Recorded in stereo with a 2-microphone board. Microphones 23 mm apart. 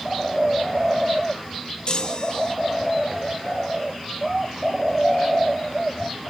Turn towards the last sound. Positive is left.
turn(degrees=50)  # may be behind; listen again after turning